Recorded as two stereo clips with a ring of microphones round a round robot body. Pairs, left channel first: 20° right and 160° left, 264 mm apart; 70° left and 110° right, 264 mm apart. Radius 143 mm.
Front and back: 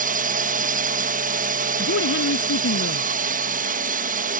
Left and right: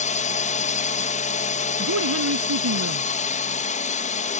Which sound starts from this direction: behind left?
A drone, at 0.0 s.